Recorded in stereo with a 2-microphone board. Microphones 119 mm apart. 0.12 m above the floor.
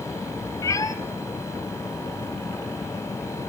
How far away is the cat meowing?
About 0.8 m.